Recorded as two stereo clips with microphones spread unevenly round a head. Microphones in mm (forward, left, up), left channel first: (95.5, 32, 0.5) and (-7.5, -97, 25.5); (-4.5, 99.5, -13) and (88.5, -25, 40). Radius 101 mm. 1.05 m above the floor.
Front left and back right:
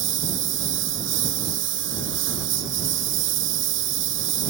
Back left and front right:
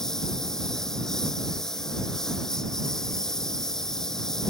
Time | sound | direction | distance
0.0 | a lawn mower | 145° right | ?